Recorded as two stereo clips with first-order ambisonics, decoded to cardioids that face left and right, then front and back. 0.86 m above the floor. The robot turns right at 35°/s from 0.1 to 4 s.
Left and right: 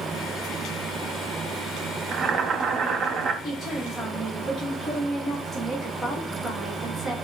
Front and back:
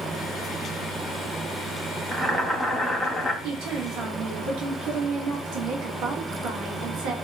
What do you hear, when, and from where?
2.1 s boiling: 120° right, 0.5 m; by 3.3 s 75° right, 0.5 m
3.4 s a woman speaking: 160° left, 1.3 m; by 7.2 s 175° left, 1.3 m